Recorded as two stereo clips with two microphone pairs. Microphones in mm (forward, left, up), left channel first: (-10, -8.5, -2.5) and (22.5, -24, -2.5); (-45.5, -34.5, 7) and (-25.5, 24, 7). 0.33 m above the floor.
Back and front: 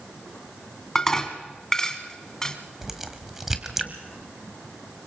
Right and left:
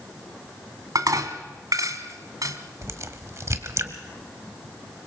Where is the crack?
50° left, 1.4 m.